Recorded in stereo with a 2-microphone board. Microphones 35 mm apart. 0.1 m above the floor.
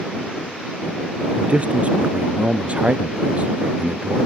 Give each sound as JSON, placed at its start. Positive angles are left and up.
{"t": 1.4, "sound": "a man speaking", "side_deg": -40}